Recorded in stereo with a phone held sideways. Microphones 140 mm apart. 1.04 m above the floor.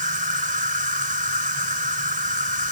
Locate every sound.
0.0 s an insect: 75° right (ahead or behind)